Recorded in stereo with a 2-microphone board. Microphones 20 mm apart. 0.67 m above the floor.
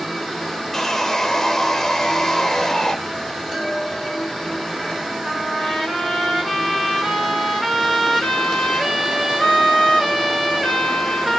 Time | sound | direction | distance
0.7 | sawing | 10° left (ahead or behind) | 1.0 m
3.5 | a chime | 15° right (ahead or behind) | 3.5 m
5.2 | a trumpet | 25° right (ahead or behind) | 4 m